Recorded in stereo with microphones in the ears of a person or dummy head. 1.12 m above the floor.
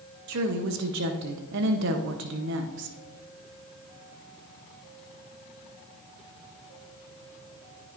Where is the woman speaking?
70° right (ahead or behind), 0.8 m.